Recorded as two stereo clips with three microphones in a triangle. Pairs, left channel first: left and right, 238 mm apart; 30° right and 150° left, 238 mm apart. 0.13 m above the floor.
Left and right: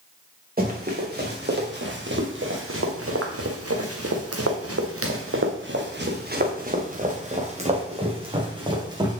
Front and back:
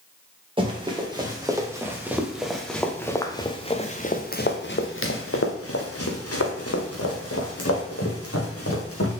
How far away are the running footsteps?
About 2.5 m.